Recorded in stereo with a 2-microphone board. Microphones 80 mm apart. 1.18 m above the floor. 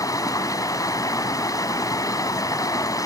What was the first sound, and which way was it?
Running water, 45° left (ahead or behind).